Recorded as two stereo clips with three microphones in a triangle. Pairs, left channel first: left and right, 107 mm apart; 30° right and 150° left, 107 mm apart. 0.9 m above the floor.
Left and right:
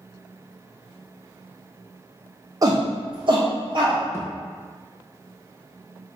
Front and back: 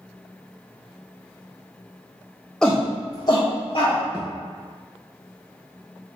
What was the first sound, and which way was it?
A shout, 110° right.